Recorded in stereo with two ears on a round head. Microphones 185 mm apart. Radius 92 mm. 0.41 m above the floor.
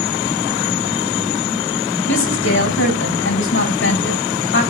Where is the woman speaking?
65° left (ahead or behind), 3.5 m.